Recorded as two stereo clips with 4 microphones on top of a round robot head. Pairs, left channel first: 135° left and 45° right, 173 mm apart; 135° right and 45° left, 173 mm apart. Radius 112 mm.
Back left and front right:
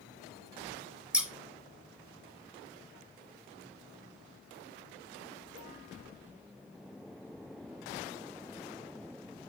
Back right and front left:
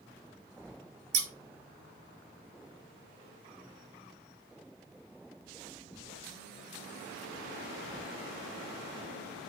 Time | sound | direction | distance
1.1 | scissors | 40° left | 1.3 m